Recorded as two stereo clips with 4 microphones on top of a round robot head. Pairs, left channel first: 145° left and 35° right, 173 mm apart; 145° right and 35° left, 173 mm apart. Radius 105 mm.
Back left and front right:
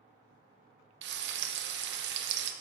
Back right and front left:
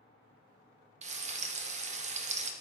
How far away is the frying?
About 0.8 m.